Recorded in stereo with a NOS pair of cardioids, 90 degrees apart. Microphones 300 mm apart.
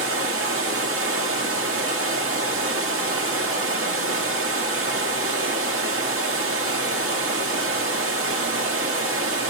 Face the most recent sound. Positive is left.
turn(degrees=-45)